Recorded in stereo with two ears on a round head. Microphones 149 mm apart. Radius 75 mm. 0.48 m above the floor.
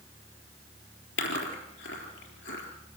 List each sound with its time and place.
1.2 s chewing: 75° left (ahead or behind), 4 m